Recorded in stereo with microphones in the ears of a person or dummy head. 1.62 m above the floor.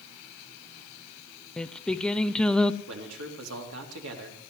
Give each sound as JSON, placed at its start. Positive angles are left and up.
{"t": 1.6, "sound": "singing", "side_deg": 5, "distance_m": 0.6}
{"t": 2.9, "sound": "a man speaking", "side_deg": -70, "distance_m": 3.5}